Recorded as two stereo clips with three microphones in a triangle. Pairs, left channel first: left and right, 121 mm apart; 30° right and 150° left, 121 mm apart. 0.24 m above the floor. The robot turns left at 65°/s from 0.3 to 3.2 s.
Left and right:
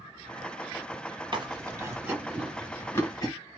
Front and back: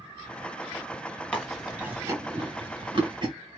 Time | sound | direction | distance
1.3 | chewing | 105° right | 1.4 m